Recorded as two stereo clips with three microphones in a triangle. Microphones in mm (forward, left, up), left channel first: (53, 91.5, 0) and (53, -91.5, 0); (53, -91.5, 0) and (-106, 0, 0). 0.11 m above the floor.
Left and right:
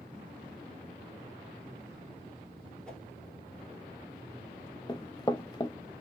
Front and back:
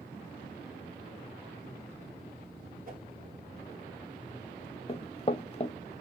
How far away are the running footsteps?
About 0.6 m.